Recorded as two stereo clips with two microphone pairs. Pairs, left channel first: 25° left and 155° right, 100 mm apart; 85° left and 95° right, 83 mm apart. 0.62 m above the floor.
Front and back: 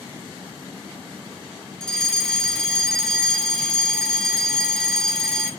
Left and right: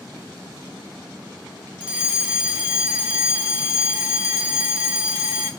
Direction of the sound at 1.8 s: 50° right.